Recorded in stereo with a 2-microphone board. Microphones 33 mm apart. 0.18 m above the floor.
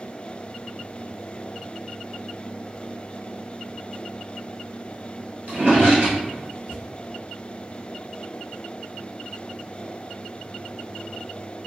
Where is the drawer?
50° right (ahead or behind), 1.6 m.